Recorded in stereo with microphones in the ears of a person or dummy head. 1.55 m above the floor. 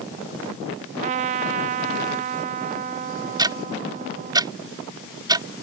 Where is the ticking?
20° right (ahead or behind).